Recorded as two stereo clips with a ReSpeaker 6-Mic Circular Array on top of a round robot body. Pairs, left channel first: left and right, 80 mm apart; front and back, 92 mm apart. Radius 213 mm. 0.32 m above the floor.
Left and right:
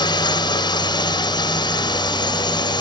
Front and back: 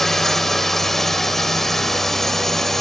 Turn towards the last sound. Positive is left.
turn(degrees=85)